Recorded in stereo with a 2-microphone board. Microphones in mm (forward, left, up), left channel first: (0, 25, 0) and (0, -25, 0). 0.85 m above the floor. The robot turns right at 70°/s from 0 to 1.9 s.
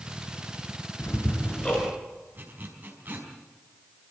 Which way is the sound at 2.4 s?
35° right (ahead or behind).